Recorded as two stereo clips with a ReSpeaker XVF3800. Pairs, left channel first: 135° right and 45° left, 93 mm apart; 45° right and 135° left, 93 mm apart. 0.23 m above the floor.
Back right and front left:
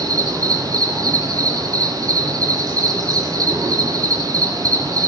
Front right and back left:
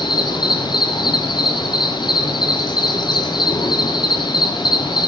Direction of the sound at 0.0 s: 5° right.